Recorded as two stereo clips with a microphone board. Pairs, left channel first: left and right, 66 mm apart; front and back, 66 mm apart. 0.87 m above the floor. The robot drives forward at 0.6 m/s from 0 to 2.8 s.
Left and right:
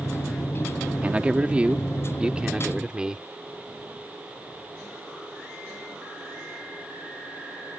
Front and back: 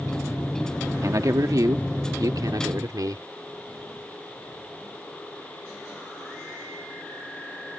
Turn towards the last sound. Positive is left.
turn(degrees=-165)